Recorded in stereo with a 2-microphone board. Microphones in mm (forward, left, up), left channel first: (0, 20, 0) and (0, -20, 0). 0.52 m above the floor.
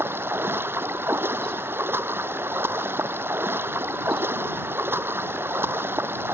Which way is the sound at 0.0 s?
60° right (ahead or behind).